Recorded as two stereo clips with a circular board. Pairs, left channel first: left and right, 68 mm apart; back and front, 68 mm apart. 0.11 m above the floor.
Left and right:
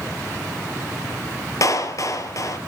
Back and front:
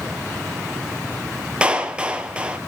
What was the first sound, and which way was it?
A clap, 70° left.